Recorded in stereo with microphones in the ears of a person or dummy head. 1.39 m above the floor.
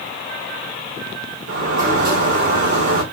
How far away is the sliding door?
About 2.0 m.